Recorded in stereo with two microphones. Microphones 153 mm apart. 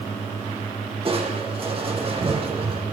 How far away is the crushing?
About 4 m.